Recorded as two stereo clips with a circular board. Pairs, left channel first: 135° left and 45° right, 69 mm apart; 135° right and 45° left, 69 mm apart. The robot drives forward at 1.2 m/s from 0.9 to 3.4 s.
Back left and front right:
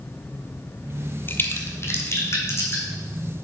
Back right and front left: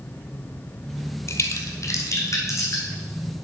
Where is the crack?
170° right, 0.8 m; by 2.8 s 175° right, 2.5 m.